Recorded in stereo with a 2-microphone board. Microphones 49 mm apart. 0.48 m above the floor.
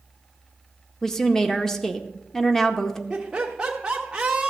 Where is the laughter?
15° right (ahead or behind), 0.9 m.